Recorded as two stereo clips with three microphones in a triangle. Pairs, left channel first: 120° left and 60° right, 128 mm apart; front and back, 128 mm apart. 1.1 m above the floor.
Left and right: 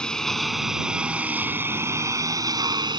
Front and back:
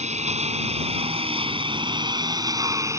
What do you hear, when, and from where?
0.0 s a lawn mower: 155° right; by 3.0 s 115° right